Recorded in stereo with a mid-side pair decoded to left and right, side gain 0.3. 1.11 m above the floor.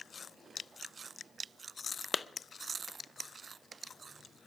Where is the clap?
45° left, 0.6 m.